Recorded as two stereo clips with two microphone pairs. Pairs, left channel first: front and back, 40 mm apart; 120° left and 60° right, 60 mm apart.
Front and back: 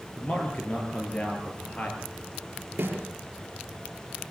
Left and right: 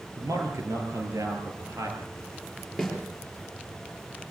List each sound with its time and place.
0.2 s a man speaking: 50° right, 6 m
2.8 s a snare drum: 155° right, 5 m